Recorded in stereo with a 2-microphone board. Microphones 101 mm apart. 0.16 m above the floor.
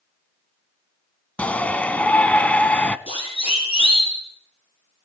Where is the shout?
15° left (ahead or behind), 1.0 m.